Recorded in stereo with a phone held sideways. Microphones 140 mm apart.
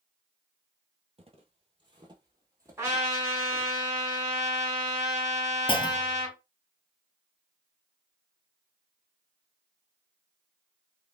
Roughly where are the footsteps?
Right.